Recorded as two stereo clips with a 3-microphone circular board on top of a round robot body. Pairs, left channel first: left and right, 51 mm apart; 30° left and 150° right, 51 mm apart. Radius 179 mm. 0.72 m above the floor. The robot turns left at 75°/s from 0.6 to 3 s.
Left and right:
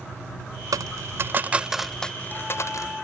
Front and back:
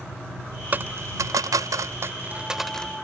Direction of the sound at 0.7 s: 95° right.